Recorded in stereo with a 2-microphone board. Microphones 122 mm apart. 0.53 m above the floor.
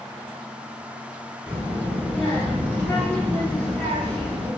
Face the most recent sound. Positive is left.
turn(degrees=10)  # may be behind; listen again after turning